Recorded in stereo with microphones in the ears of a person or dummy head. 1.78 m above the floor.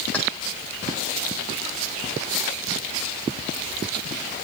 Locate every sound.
0.1 s keys jangling: 10° left (ahead or behind), 4.5 m